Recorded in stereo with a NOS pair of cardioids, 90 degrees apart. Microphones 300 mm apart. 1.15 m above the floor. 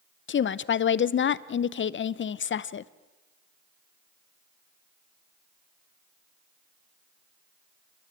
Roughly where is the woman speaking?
Ahead left.